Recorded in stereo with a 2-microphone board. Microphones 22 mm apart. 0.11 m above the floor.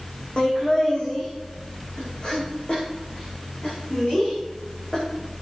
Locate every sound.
0.4 s laughter: 45° left (ahead or behind), 5.5 m